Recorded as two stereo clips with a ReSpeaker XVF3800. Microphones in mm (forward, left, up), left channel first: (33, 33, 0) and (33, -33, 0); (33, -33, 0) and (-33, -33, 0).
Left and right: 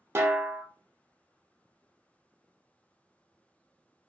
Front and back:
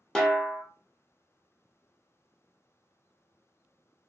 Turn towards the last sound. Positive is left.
turn(degrees=-75)